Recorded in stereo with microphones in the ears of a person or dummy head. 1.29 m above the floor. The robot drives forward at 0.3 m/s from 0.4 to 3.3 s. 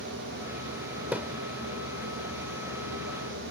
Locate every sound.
1.1 s a thud: 5° right (ahead or behind)